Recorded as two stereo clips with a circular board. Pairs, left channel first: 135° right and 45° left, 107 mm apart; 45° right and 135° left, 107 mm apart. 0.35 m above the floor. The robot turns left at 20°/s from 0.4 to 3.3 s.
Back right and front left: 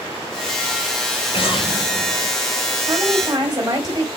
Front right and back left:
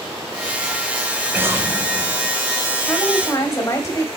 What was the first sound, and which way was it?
An explosion, 155° right.